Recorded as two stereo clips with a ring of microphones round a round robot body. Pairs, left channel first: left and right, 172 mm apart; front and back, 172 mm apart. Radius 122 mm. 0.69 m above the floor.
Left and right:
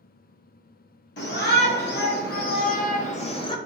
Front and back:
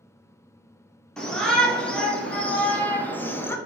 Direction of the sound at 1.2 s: 85° left.